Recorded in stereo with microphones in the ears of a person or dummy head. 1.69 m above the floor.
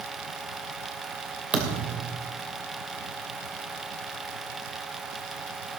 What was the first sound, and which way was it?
A thud, centre (ahead or behind).